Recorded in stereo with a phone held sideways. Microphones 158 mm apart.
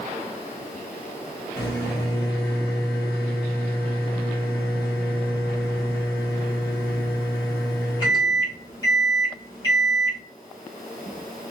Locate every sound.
1.6 s a microwave: 25° left (ahead or behind), 1.4 m